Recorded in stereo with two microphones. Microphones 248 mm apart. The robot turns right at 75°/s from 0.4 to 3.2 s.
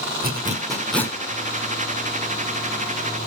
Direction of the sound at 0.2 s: 40° right (ahead or behind).